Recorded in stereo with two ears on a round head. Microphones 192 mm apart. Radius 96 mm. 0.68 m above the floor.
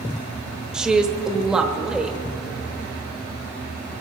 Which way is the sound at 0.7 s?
5° right (ahead or behind).